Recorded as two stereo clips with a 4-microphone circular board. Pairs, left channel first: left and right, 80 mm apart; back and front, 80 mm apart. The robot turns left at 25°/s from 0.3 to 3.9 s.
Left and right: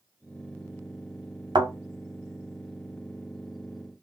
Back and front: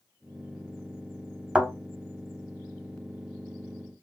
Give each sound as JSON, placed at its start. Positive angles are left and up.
{"t": 1.6, "sound": "a thud", "azimuth_deg": -75, "distance_m": 1.8}